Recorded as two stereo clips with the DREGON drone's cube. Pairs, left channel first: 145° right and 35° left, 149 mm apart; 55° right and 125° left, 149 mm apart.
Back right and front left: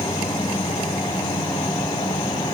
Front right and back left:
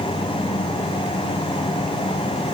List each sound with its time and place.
Only background noise.